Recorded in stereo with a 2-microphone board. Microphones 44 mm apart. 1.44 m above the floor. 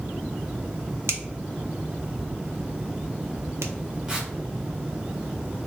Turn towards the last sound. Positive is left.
turn(degrees=-15)  # may be behind; listen again after turning